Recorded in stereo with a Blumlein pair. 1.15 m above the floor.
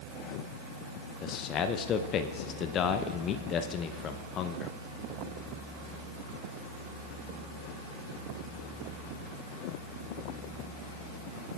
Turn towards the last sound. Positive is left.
turn(degrees=30)